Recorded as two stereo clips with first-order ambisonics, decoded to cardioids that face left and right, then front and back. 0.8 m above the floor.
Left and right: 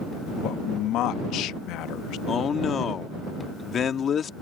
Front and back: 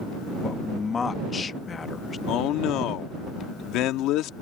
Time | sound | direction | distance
0.4 | a man speaking | 65° left | ?
2.3 | a man speaking | 30° left | ?